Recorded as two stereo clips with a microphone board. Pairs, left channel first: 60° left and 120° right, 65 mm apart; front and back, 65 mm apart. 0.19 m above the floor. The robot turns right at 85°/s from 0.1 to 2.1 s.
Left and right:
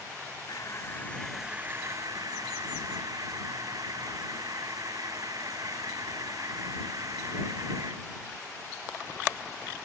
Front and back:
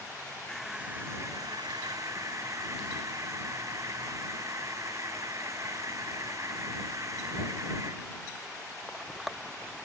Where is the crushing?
80° left; by 8.1 s 145° right.